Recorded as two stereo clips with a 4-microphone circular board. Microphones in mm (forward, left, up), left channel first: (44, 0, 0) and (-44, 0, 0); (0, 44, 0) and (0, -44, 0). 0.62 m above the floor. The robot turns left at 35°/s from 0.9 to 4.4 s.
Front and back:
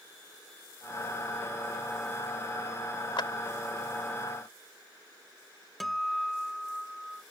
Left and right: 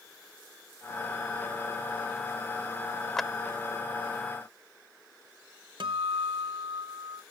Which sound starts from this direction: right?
A guitar, at 5.8 s.